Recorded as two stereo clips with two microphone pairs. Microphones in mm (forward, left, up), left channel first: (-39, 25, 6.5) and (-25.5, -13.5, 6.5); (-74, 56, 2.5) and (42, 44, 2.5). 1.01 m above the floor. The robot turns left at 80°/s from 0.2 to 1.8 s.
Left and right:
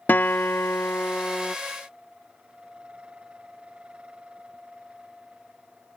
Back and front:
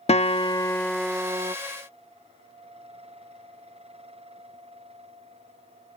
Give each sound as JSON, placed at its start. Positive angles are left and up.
{"t": 0.1, "sound": "a guitar", "azimuth_deg": 150}